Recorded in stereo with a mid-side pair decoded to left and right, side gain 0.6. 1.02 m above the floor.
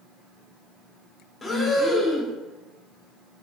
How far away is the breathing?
About 1.6 m.